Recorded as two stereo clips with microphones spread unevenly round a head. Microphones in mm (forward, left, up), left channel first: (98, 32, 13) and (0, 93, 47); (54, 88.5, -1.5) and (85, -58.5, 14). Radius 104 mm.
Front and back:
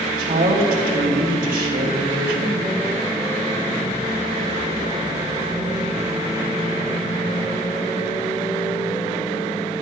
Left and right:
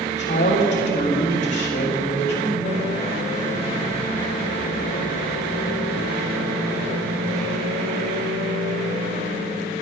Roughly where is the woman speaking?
Behind.